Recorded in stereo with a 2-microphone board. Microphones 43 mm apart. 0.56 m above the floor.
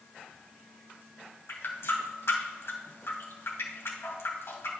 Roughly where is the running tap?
Left.